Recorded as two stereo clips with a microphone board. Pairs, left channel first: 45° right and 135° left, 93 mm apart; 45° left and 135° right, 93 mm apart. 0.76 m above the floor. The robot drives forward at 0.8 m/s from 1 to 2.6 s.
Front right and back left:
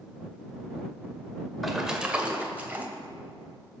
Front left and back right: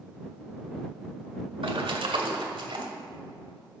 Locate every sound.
1.6 s a splash: 135° right, 1.2 m; by 2.9 s 155° right, 1.8 m